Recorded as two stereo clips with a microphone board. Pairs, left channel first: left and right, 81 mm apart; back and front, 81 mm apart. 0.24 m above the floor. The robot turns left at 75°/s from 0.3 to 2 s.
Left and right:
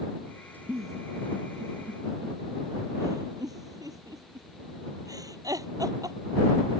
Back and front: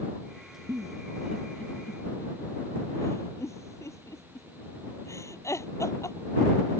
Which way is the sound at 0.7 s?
35° right.